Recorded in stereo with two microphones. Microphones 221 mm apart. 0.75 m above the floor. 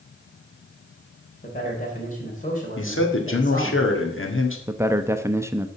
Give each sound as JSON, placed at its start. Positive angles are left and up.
{"t": 1.4, "sound": "a man speaking", "side_deg": 35, "distance_m": 3.0}
{"t": 2.8, "sound": "a man speaking", "side_deg": 65, "distance_m": 1.8}
{"t": 4.7, "sound": "a man speaking", "side_deg": -10, "distance_m": 0.7}